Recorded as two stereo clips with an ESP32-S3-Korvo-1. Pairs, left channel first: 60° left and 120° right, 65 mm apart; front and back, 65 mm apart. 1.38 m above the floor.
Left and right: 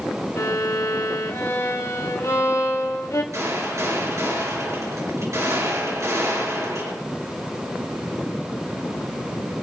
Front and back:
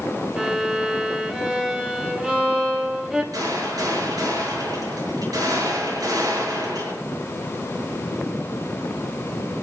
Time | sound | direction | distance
0.4 | a violin | 100° left | 2.5 m
3.3 | a gunshot | 160° right | 7 m